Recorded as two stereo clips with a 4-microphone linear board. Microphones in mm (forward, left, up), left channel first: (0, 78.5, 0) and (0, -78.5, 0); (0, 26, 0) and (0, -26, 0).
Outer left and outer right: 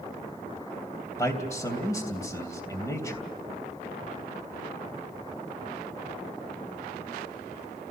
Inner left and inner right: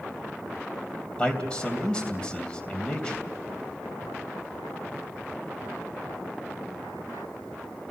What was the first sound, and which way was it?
A man speaking, 20° left (ahead or behind).